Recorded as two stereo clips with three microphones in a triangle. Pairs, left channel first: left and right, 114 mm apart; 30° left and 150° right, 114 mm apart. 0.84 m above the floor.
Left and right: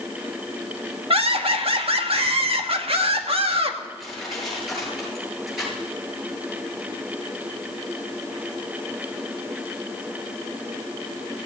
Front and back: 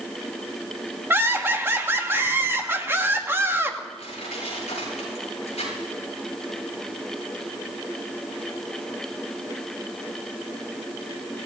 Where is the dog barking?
I don't hear a dog barking.